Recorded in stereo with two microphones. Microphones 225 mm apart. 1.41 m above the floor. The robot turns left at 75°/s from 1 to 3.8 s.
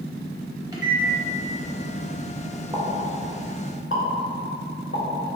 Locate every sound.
0.7 s a microwave: 15° right (ahead or behind), 0.6 m; by 1.1 s 10° right (ahead or behind), 0.6 m
2.7 s a pop: 15° right (ahead or behind), 0.7 m; by 5.0 s 60° left (ahead or behind), 0.7 m